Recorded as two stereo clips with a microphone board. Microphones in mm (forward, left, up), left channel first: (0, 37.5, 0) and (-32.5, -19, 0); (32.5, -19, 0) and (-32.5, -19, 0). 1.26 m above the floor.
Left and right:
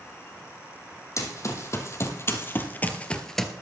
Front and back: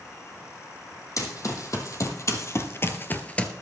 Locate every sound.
1.2 s running footsteps: 25° left, 3 m; by 3.5 s 40° right, 1.2 m